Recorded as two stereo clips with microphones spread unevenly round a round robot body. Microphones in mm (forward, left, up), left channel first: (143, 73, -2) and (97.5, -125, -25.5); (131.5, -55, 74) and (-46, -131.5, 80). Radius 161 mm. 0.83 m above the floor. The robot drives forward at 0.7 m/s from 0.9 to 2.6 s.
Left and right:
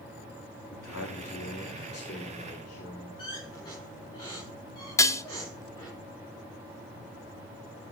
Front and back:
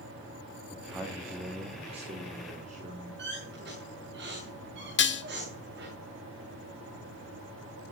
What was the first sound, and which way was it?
A man speaking, 115° left.